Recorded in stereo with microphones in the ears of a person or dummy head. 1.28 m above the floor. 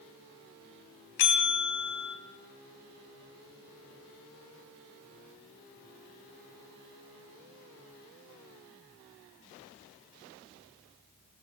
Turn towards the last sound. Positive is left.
turn(degrees=60)  # may be behind; listen again after turning